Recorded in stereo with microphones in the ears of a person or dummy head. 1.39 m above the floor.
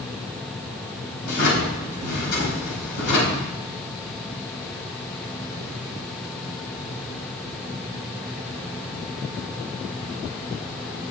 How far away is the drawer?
About 4.5 m.